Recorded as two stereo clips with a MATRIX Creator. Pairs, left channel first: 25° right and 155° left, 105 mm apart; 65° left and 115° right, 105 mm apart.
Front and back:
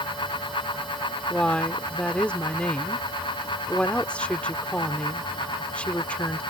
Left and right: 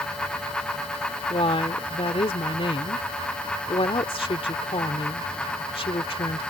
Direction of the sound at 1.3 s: 55° left.